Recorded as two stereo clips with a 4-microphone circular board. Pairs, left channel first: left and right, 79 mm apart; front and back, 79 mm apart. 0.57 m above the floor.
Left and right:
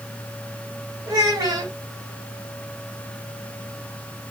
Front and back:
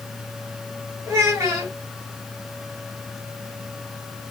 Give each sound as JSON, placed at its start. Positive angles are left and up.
{"t": 1.1, "sound": "a child speaking", "azimuth_deg": -120, "distance_m": 2.0}